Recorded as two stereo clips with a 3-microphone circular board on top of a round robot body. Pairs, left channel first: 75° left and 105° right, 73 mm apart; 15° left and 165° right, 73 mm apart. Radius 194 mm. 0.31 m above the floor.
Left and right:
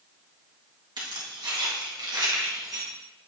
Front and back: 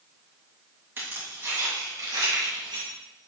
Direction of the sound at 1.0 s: 105° right.